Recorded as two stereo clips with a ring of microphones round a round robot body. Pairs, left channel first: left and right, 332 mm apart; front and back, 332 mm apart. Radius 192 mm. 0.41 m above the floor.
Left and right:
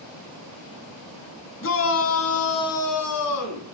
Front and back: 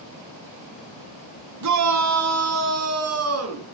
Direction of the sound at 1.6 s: 145° left.